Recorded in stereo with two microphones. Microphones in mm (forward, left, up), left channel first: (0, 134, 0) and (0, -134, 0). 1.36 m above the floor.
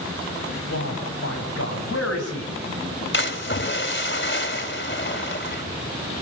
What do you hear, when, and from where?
0.7 s a man speaking: 60° left (ahead or behind), 10 m
3.1 s a splash: 45° left (ahead or behind), 3 m